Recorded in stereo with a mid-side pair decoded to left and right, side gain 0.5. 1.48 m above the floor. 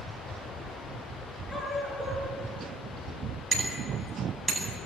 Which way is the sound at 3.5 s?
20° right.